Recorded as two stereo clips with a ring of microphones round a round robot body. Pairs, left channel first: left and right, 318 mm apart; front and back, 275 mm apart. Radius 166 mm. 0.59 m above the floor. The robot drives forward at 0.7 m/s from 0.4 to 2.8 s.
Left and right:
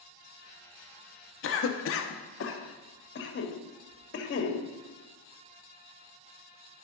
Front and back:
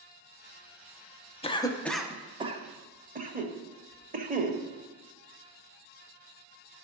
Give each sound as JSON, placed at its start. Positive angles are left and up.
{"t": 1.4, "sound": "a cough", "azimuth_deg": 60, "distance_m": 1.1}